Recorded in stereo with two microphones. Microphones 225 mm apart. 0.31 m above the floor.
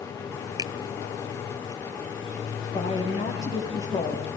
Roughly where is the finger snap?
Centre.